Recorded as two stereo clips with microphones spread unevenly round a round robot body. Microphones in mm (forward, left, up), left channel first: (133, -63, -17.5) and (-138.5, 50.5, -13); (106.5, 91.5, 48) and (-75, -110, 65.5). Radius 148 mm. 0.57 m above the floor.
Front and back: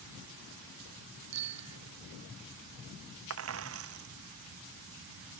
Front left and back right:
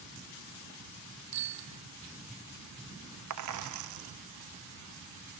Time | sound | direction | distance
1.3 | a bicycle bell | 165° right | ?
3.3 | a dropped coin | 160° right | ?